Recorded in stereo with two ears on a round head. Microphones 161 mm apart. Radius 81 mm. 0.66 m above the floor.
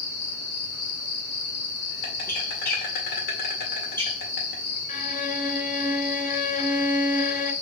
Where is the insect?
50° left (ahead or behind), 1.8 m.